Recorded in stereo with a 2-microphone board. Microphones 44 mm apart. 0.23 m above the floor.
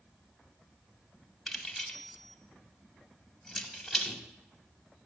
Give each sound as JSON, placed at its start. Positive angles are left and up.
{"t": 1.5, "sound": "keys jangling", "side_deg": 0, "distance_m": 0.9}